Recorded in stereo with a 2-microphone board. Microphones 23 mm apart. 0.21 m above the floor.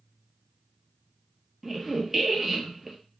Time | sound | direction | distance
1.6 | a squeak | 10° right (ahead or behind) | 0.8 m